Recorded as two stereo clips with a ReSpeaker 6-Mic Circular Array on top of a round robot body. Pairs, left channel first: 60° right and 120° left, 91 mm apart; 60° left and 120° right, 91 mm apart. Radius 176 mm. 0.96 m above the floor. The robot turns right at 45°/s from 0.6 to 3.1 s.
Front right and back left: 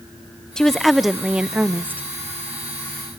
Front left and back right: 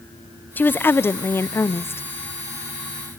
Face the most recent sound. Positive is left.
turn(degrees=130)